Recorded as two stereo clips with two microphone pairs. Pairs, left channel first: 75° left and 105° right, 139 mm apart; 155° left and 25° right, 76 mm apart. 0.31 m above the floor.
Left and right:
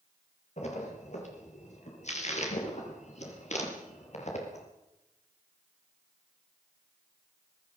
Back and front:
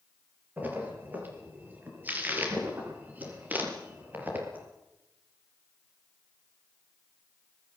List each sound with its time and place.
0.6 s a splash: 45° left, 5.5 m